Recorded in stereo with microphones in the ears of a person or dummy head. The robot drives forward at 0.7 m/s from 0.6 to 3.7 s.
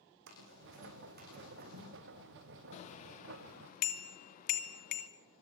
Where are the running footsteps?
60° right (ahead or behind), 5.5 m; by 1.9 s 45° right (ahead or behind), 8 m.